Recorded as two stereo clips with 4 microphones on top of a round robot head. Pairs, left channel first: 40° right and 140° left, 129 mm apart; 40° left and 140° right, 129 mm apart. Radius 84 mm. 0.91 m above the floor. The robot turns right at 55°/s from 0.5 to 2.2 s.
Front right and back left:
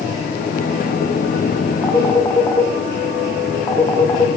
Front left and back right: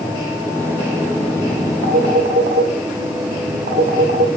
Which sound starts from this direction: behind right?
A phone ringing, at 1.8 s.